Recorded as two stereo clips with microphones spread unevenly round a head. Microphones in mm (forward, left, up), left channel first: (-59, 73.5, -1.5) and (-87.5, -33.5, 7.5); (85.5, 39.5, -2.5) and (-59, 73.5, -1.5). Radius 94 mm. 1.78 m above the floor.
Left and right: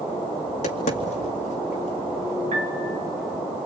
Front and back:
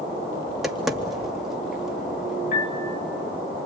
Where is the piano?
60° right, 1.3 m.